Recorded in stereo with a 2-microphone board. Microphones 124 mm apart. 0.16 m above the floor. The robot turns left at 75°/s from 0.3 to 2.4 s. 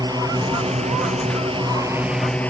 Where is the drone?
35° right (ahead or behind); by 2.5 s 10° left (ahead or behind).